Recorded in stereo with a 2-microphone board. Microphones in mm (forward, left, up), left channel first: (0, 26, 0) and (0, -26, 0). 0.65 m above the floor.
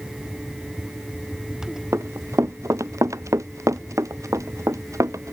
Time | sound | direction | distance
1.9 | running footsteps | 65° right (ahead or behind) | ?